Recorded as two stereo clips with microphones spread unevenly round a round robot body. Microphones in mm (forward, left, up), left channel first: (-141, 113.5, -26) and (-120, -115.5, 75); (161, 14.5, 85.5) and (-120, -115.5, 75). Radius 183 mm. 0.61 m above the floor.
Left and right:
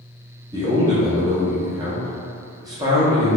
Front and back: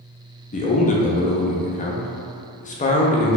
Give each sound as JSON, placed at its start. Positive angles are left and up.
{"t": 0.5, "sound": "a man speaking", "azimuth_deg": 30, "distance_m": 0.6}